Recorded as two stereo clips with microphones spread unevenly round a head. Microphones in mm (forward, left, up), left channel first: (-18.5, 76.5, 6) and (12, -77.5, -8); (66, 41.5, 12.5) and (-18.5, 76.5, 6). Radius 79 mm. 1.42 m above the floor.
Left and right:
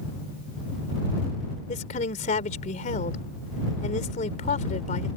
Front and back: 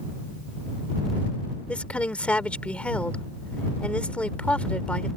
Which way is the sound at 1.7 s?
55° left.